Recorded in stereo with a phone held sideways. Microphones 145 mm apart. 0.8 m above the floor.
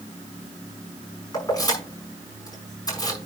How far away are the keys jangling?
About 5.5 m.